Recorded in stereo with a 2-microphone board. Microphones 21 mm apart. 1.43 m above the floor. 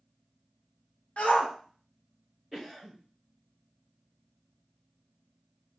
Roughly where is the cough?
Centre.